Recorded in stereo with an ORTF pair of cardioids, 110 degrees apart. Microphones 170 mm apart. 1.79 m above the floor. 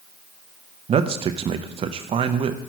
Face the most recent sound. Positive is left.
turn(degrees=-40)